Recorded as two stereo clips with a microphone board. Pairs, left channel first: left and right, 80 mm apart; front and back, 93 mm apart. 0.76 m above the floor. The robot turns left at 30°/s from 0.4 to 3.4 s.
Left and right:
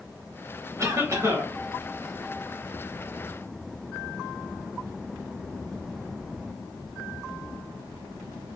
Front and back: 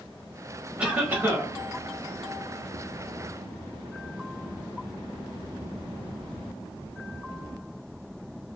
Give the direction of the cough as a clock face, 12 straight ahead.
4 o'clock.